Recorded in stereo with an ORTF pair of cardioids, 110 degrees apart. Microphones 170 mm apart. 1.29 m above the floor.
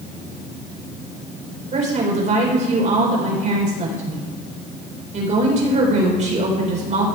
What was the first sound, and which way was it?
A woman speaking, 45° right.